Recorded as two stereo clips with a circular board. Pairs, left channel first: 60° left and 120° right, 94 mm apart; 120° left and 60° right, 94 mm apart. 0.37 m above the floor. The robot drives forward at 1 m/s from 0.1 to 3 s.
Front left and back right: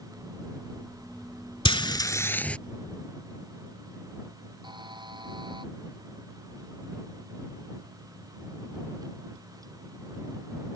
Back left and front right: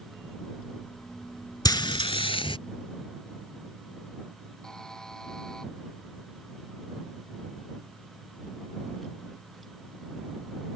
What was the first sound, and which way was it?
Frying, 75° left.